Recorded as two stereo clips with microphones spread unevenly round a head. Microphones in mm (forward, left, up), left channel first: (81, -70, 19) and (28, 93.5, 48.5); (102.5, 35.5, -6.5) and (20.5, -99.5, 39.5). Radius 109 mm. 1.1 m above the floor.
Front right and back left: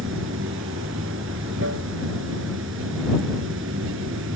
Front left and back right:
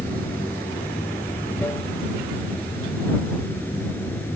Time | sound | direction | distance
0.0 | running water | 140° left | ?